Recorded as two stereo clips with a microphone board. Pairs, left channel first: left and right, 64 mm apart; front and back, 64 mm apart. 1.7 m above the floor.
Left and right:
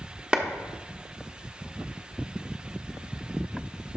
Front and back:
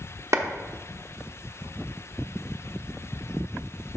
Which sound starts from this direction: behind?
A clap, at 0.3 s.